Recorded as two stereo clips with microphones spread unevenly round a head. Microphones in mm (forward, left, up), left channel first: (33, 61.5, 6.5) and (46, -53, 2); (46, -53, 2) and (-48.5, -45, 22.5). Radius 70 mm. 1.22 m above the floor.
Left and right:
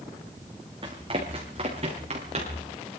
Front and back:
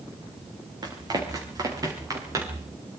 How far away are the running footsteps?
About 5 m.